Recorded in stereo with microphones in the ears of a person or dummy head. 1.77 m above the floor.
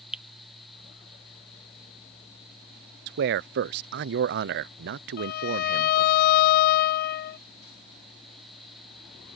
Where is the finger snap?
5° right (ahead or behind).